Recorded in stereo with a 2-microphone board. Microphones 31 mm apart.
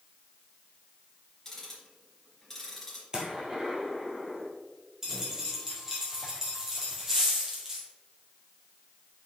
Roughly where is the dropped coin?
Centre.